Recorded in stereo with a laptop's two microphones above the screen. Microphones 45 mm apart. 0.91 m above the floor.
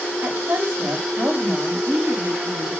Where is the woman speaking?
55° right (ahead or behind), 5 m.